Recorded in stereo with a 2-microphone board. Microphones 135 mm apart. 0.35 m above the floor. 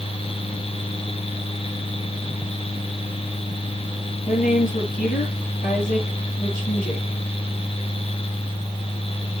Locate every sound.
4.3 s a woman speaking: 80° left, 6.5 m